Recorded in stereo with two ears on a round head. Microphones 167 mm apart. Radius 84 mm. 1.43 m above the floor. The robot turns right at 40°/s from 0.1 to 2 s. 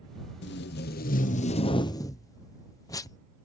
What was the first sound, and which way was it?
Tape being pulled, 95° left.